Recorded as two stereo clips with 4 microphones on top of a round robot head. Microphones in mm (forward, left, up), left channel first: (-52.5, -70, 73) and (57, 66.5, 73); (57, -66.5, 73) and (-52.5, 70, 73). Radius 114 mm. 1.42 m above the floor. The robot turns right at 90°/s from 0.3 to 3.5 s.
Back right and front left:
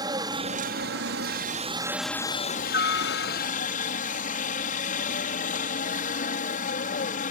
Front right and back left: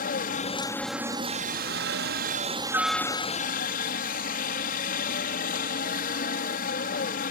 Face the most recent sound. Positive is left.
turn(degrees=-85)